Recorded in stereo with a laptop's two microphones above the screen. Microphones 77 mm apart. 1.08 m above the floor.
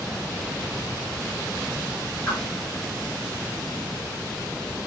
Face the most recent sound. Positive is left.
turn(degrees=25)  # may be behind; listen again after turning